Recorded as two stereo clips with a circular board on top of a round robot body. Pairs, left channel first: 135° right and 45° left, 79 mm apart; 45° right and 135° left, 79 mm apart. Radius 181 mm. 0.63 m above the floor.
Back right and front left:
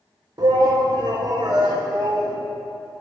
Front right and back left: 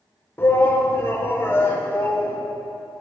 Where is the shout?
15° left, 2.5 m.